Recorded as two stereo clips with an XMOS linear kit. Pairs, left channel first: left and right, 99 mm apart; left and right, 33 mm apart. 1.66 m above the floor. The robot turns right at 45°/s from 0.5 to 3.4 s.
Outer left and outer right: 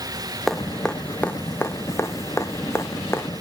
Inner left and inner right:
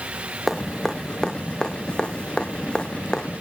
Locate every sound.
0.5 s dripping: centre (ahead or behind), 1.0 m; by 3.3 s 20° left (ahead or behind), 1.0 m